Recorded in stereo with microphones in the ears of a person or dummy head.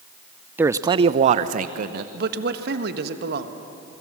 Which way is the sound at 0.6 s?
10° right (ahead or behind).